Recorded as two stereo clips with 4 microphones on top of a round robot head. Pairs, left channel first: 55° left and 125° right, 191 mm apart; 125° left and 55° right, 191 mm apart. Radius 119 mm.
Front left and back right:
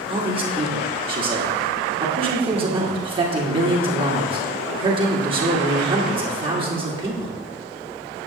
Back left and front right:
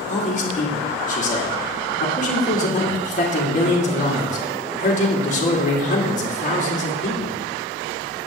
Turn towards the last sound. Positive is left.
turn(degrees=170)